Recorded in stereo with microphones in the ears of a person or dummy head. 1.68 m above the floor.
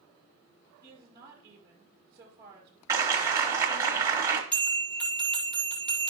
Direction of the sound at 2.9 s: 25° right (ahead or behind).